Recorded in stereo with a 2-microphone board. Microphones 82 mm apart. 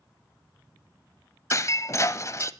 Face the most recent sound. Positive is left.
turn(degrees=40)  # may be behind; listen again after turning